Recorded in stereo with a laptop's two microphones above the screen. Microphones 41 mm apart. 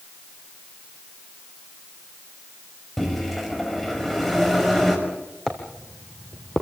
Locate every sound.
3.0 s a microwave: 5° left (ahead or behind), 5.5 m
5.5 s footsteps: 15° left (ahead or behind), 2.5 m; by 6.6 s 25° left (ahead or behind), 1.6 m